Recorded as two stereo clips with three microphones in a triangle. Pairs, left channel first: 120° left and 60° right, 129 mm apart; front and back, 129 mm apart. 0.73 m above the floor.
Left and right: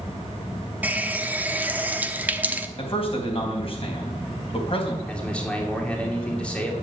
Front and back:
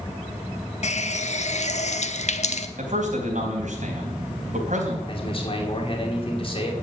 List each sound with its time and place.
0.8 s a running tap: 15° left, 0.9 m
2.8 s a man speaking: 165° left, 3.5 m
5.1 s a man speaking: 40° left, 2.5 m